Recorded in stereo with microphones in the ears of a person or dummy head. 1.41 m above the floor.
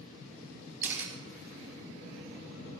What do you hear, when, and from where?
0.8 s a camera shutter: 10° right (ahead or behind), 3.5 m